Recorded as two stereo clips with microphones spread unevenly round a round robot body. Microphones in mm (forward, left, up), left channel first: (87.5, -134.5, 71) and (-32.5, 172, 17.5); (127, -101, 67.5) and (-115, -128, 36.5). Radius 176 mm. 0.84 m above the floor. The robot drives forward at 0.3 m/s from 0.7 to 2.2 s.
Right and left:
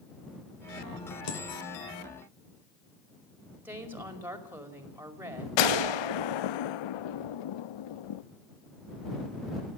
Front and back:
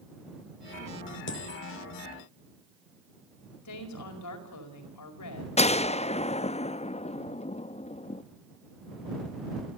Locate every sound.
1.3 s a dropped coin: 30° right, 3 m
3.6 s a woman speaking: 30° left, 5 m
5.6 s a gunshot: 65° right, 0.6 m